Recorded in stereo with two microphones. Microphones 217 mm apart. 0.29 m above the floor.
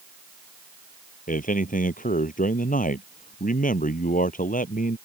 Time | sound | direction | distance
1.3 | a man speaking | 40° left (ahead or behind) | ?